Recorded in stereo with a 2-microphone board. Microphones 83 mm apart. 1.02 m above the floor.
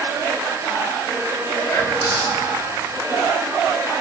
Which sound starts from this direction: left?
Whispering, at 1.7 s.